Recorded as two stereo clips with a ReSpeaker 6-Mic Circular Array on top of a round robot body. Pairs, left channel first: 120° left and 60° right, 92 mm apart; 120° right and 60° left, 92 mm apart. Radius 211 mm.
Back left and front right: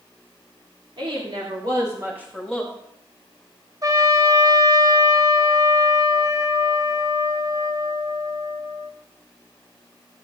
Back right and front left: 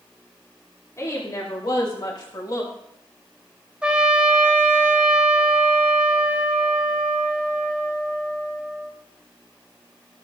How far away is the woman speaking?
About 2.5 m.